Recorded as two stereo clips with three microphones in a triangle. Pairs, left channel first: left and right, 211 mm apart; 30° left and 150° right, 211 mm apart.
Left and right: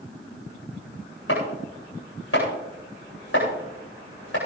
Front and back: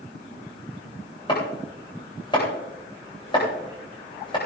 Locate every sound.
1.3 s chopping: 100° left, 9 m